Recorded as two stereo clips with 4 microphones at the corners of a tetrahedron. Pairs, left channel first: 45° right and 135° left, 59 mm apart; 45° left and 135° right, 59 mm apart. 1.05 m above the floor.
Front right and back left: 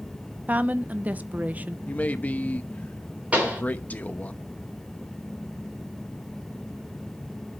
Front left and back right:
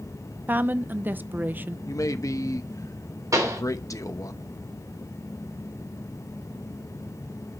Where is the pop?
160° right, 4 m.